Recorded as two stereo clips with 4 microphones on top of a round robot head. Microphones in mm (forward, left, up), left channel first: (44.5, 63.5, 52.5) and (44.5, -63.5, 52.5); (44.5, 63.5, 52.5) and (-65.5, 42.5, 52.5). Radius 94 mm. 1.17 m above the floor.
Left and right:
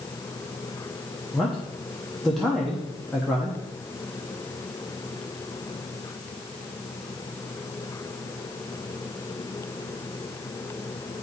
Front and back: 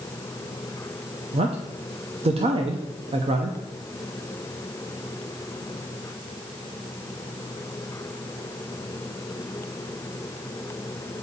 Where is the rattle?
I don't hear a rattle.